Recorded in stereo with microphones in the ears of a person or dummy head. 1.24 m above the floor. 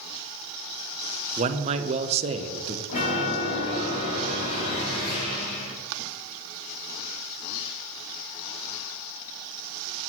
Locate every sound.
1.4 s a man speaking: 35° right (ahead or behind), 0.6 m
2.9 s a chime: 40° left (ahead or behind), 3.5 m